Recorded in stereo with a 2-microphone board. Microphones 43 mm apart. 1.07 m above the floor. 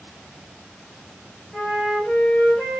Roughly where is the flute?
Centre.